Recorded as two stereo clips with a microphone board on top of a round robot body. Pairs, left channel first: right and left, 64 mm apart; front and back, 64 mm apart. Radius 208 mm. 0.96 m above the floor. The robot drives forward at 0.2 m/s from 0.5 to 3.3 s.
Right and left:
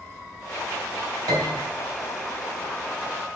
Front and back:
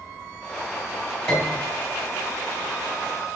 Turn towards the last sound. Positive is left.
turn(degrees=105)